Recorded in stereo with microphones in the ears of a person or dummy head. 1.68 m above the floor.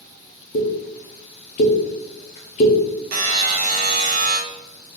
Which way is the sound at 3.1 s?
45° right (ahead or behind).